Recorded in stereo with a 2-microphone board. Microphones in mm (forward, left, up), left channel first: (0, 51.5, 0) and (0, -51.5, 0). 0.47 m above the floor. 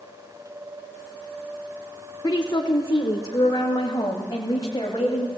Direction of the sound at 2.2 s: 40° left (ahead or behind).